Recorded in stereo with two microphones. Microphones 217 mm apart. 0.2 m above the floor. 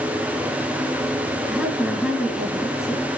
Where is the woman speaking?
5° right (ahead or behind), 2.5 m.